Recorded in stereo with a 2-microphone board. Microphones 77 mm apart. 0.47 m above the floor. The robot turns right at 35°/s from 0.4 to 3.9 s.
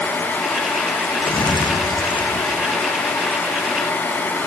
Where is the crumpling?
65° left, 4.5 m; by 3.6 s 150° left, 4.5 m.